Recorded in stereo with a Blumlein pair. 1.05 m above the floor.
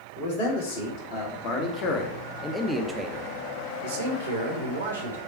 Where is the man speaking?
50° left, 1.9 m; by 5.2 s 80° right, 1.5 m.